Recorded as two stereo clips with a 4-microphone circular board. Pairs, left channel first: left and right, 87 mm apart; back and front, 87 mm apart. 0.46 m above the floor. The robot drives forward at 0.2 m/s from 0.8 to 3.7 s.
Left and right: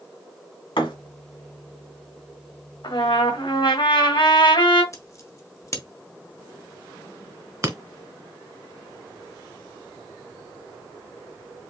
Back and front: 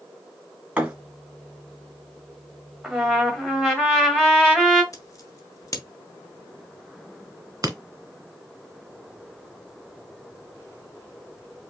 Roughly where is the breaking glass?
Ahead right.